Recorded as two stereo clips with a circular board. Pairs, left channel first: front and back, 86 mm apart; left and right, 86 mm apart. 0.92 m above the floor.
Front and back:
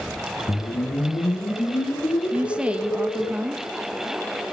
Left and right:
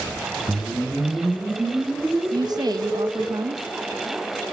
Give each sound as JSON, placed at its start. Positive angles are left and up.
{"t": 0.5, "sound": "a whoosh", "azimuth_deg": -20, "distance_m": 2.5}
{"t": 2.3, "sound": "a woman speaking", "azimuth_deg": -110, "distance_m": 1.1}